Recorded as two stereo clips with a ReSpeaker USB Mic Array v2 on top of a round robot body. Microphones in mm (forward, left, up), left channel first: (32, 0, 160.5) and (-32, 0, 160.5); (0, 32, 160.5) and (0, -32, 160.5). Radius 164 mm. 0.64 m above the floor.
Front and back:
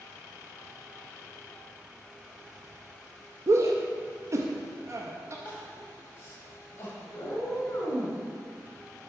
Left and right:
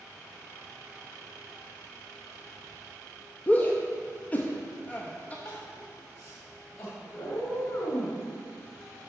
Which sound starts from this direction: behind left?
A shout, at 3.5 s.